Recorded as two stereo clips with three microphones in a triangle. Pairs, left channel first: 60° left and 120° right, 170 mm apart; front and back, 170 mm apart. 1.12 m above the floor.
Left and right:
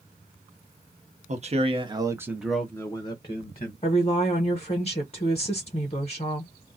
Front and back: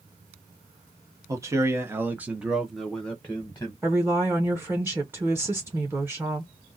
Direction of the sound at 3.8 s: 105° left.